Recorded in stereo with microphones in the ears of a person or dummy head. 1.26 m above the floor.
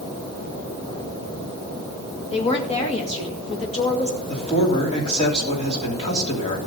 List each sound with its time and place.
2.3 s a woman speaking: 30° left (ahead or behind), 2 m
4.3 s a man speaking: 35° left (ahead or behind), 3 m